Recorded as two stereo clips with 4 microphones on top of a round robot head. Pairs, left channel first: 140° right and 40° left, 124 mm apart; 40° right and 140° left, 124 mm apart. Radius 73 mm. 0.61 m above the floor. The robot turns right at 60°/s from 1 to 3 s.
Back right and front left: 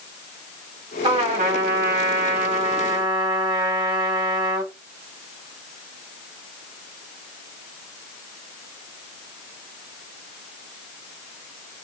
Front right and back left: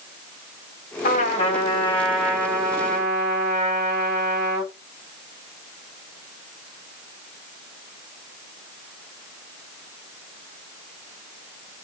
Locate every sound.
1.0 s a trumpet: 15° right, 1.4 m; by 4.7 s 100° left, 1.4 m